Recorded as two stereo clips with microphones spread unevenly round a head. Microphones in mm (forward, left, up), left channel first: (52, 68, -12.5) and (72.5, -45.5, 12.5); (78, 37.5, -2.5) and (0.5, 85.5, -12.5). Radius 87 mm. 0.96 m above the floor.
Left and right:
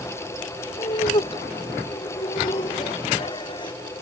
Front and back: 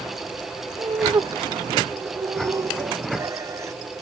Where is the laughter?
110° left.